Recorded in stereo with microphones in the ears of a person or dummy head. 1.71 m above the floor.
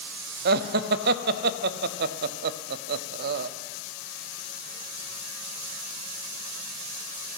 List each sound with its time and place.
0.5 s laughter: 50° right (ahead or behind), 0.6 m